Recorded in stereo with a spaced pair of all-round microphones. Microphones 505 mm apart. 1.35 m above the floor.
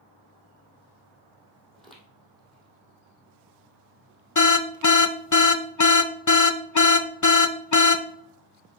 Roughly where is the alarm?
Left.